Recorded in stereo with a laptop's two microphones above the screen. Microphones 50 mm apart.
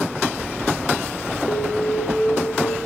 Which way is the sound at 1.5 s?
50° left (ahead or behind).